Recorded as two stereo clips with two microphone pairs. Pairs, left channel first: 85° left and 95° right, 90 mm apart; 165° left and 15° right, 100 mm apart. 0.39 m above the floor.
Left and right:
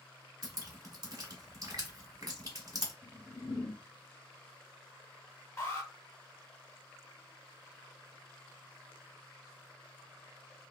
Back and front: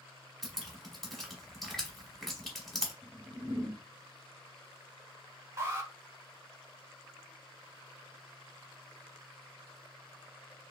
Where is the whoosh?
60° left, 0.6 m.